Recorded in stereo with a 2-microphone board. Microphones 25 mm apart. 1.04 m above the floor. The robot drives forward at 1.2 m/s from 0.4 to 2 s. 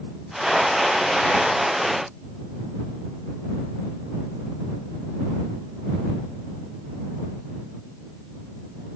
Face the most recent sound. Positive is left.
No sound to turn to.